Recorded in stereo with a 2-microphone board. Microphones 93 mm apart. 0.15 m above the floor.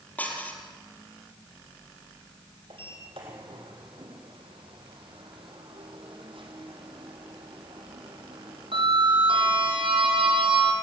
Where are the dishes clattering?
15° left (ahead or behind), 3 m.